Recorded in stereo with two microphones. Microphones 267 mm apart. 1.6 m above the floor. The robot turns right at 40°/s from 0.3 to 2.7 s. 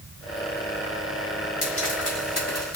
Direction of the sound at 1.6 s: 50° left (ahead or behind).